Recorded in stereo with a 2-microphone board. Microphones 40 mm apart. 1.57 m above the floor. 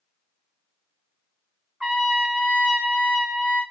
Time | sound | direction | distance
1.8 | a trumpet | 25° right (ahead or behind) | 2 m